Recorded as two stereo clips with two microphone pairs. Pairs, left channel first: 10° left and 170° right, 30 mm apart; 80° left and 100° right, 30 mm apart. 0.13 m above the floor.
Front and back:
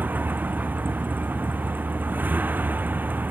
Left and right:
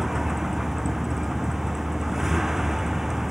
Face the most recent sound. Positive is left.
turn(degrees=-175)